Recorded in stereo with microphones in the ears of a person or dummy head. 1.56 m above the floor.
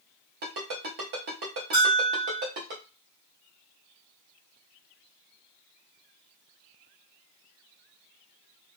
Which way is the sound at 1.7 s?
20° right (ahead or behind).